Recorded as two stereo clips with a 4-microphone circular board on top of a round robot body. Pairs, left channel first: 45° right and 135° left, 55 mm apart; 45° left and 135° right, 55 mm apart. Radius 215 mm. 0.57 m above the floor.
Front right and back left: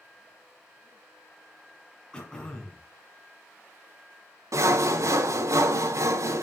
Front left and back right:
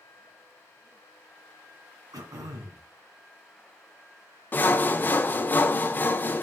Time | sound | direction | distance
2.1 | throat clearing | 120° right | 2 m
4.5 | sawing | 105° left | 0.8 m